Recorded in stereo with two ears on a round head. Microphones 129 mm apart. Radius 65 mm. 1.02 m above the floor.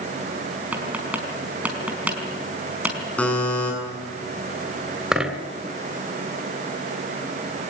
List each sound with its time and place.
0.7 s tapping: 10° right (ahead or behind), 5 m
3.2 s a buzzer: 10° left (ahead or behind), 9 m
5.1 s a dropped coin: 5° right (ahead or behind), 3 m